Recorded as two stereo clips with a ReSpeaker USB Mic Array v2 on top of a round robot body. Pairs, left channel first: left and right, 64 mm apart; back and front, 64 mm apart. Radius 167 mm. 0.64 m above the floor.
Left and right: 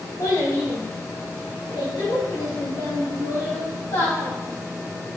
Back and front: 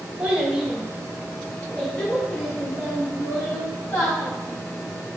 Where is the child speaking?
70° left, 1.3 m; by 4.3 s 130° left, 2.5 m.